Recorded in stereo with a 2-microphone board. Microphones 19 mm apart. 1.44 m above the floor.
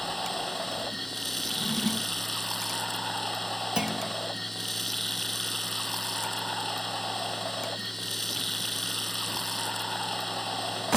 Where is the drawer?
Centre (ahead or behind).